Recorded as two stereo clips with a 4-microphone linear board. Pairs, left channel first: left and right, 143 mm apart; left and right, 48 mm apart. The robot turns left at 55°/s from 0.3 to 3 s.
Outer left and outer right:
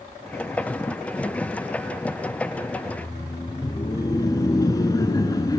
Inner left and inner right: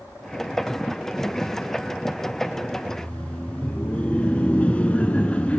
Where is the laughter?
30° left (ahead or behind), 1.4 m; by 5.6 s 25° left (ahead or behind), 1.4 m.